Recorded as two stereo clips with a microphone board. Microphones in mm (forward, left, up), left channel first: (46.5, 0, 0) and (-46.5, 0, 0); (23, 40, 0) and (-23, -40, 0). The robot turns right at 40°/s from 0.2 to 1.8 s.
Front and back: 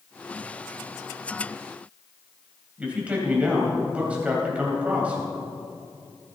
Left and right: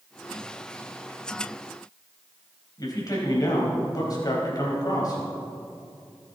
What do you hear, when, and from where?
2.8 s a man speaking: 105° left, 4 m